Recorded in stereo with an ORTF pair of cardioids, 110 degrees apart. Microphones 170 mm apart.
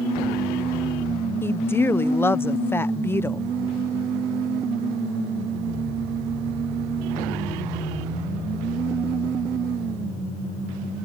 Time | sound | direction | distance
1.4 | a woman speaking | 15° left | ?